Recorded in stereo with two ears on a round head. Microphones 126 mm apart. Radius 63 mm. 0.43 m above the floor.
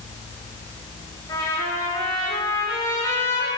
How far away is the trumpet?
About 7 m.